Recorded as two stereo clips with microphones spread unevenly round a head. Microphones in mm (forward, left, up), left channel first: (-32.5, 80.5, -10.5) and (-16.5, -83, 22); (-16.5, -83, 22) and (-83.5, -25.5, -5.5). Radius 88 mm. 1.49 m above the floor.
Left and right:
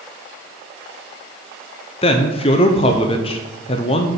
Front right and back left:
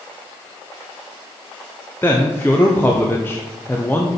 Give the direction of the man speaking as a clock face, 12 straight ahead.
11 o'clock.